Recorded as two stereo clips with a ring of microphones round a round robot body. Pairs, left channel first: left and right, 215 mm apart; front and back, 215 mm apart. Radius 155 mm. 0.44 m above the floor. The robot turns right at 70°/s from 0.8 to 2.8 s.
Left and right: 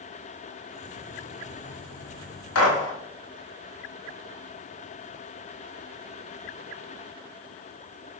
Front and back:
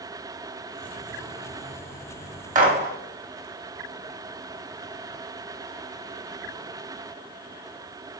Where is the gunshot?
125° left, 2 m; by 2.9 s 140° left, 2 m.